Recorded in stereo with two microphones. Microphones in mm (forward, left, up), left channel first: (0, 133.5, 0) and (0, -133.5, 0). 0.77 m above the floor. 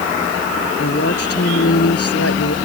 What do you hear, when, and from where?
0.8 s a woman speaking: 60° left (ahead or behind); by 2.5 s 65° left (ahead or behind)